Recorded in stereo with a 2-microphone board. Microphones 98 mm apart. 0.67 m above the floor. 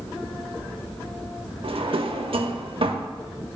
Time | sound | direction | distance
1.6 | a drawer | 65° right (ahead or behind) | 0.6 m